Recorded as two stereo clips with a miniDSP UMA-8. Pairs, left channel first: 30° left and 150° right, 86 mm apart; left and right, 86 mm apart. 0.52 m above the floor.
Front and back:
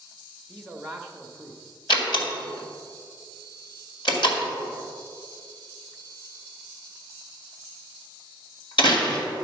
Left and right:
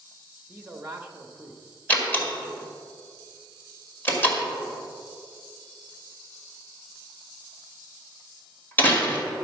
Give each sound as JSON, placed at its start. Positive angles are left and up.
{"t": 0.5, "sound": "a man speaking", "azimuth_deg": -45, "distance_m": 1.0}
{"t": 1.9, "sound": "a door slam", "azimuth_deg": 25, "distance_m": 1.9}